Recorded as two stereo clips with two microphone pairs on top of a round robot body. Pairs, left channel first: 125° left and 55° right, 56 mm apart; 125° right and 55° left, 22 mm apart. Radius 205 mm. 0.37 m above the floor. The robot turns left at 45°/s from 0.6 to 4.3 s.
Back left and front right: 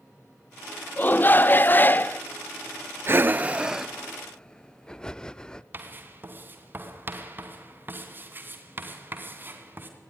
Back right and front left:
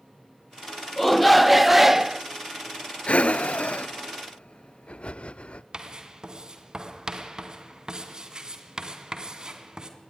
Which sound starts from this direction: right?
Breathing, at 3.1 s.